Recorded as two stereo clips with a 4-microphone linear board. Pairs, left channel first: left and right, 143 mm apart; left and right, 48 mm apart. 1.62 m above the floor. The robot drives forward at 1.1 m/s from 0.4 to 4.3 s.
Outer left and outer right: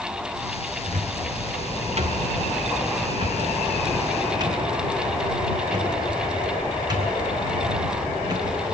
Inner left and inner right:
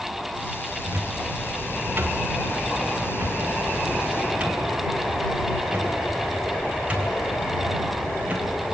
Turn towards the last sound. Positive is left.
turn(degrees=-30)  # may be behind; listen again after turning